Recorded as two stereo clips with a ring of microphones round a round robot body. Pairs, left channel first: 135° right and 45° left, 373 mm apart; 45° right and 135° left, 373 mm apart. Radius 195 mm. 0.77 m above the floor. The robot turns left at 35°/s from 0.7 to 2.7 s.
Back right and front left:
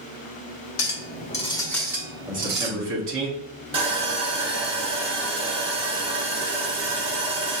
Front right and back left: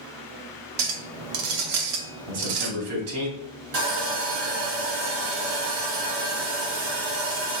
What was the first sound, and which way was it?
A clink, 170° left.